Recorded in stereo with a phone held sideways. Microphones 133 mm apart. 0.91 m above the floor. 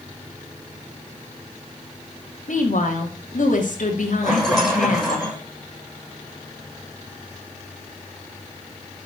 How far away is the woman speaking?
About 2.5 m.